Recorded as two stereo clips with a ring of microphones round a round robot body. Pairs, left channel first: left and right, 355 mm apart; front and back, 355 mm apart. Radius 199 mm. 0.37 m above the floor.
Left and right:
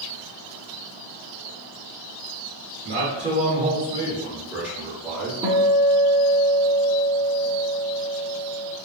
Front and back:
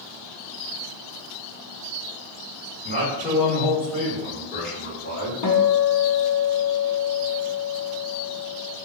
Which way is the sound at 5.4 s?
15° right.